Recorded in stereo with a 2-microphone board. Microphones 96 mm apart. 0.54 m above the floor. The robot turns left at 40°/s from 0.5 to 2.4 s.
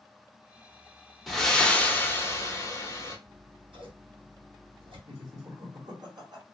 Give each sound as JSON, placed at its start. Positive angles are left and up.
{"t": 1.3, "sound": "breathing", "azimuth_deg": 180, "distance_m": 0.8}
{"t": 3.3, "sound": "scissors", "side_deg": -60, "distance_m": 1.7}
{"t": 5.1, "sound": "laughter", "side_deg": -50, "distance_m": 1.7}